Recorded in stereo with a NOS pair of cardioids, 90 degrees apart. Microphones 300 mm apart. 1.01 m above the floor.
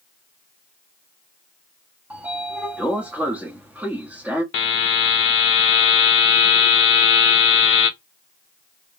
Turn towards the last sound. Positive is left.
turn(degrees=45)